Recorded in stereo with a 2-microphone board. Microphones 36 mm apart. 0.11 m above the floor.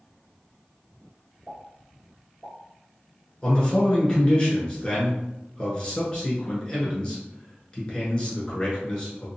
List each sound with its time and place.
1.5 s a pop: 5° left (ahead or behind), 1.7 m
3.4 s a man speaking: 25° left (ahead or behind), 1.3 m